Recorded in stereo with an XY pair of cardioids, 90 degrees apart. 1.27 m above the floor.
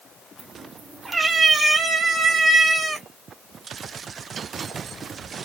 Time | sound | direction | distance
0.4 | a cat meowing | 20° right | 3 m